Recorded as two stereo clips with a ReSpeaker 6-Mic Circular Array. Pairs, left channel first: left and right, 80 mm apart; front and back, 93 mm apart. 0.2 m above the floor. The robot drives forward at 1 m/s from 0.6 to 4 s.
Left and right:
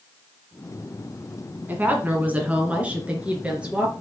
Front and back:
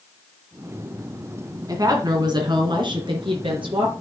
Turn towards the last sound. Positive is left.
turn(degrees=-165)